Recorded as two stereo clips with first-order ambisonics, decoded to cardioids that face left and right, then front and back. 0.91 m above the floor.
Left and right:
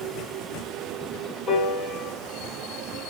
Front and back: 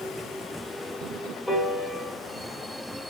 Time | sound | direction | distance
1.5 | a piano | 85° left | 0.7 m